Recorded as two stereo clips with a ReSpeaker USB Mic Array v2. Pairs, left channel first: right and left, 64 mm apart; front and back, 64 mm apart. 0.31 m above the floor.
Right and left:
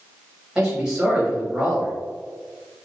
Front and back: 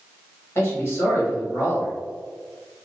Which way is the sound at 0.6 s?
15° left.